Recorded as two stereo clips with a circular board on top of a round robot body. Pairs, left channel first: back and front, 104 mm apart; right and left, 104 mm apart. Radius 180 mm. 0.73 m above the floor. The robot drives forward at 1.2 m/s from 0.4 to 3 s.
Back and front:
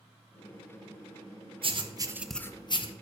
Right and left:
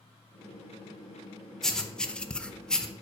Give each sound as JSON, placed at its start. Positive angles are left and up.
{"t": 1.6, "sound": "writing", "azimuth_deg": -5, "distance_m": 1.0}